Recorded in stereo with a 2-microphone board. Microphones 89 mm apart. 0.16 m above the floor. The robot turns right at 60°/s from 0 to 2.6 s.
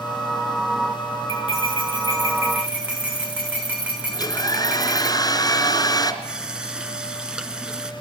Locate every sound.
1.3 s cutlery clinking: 90° right, 8.5 m; by 5.1 s 15° right, 8.5 m
4.1 s a hair dryer: 45° left (ahead or behind), 2.5 m
6.2 s a running tap: 10° right (ahead or behind), 1.3 m